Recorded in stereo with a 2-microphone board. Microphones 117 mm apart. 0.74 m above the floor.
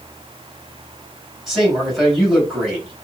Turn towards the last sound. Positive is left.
turn(degrees=0)  # may be behind; listen again after turning